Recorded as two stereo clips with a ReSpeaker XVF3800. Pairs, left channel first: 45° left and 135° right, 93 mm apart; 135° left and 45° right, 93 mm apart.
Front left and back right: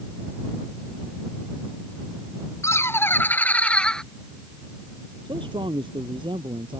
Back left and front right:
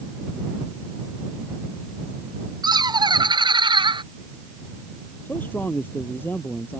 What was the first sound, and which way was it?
Laughter, 10° right.